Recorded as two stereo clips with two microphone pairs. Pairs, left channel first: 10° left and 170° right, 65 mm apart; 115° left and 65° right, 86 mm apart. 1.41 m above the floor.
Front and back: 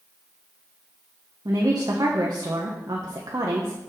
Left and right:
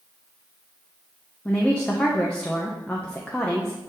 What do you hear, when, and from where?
1.4 s a woman speaking: 170° right, 1.0 m